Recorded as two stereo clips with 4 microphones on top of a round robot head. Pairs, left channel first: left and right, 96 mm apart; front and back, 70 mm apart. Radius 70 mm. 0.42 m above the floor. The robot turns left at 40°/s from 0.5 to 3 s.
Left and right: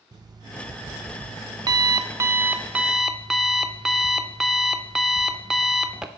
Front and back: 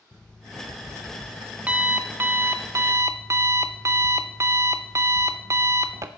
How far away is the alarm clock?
About 0.5 m.